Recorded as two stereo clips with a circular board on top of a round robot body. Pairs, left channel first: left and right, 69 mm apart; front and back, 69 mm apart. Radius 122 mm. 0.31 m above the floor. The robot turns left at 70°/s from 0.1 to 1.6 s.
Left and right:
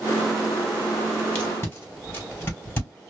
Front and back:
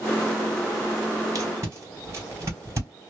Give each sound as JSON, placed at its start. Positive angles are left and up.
{"t": 1.4, "sound": "tape being pulled", "azimuth_deg": 155, "distance_m": 2.5}